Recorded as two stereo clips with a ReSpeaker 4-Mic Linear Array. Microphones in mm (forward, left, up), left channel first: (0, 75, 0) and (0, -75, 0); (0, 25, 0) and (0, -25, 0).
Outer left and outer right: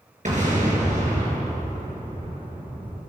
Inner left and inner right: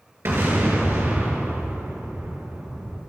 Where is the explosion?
55° right (ahead or behind), 4 m.